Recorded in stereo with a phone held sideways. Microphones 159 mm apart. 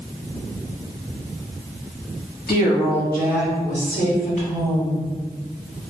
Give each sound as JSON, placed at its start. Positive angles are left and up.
{"t": 2.5, "sound": "a woman speaking", "side_deg": 75, "distance_m": 1.3}